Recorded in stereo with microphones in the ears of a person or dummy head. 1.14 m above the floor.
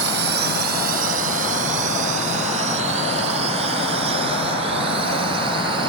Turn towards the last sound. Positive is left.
turn(degrees=-30)  # may be behind; listen again after turning